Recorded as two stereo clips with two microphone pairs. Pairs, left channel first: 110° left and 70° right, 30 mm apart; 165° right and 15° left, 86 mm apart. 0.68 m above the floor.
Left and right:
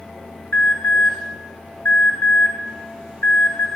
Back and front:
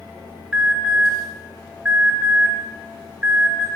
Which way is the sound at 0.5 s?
90° left.